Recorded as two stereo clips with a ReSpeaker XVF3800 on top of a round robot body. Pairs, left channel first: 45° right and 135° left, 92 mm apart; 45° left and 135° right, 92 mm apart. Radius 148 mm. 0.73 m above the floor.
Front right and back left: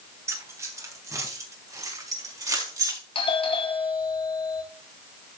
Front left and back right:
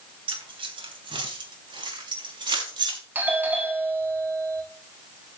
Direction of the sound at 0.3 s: 160° right.